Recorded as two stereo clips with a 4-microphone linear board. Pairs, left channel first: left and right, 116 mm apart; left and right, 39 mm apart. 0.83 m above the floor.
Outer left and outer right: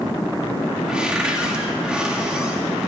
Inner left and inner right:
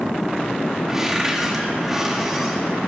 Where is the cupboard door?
10° right (ahead or behind), 1.8 m.